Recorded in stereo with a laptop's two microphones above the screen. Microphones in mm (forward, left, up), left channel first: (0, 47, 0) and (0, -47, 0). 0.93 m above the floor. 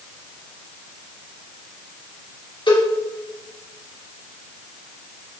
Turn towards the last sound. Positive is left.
turn(degrees=60)  # may be behind; listen again after turning